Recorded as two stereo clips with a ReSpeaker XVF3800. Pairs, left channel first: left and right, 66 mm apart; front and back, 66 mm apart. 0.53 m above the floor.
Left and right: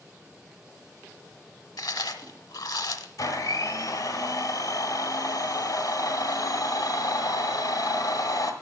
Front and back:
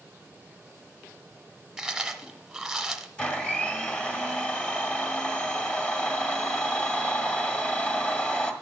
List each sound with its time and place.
1.8 s chewing: 95° left, 0.7 m
3.2 s a blender: 65° left, 1.4 m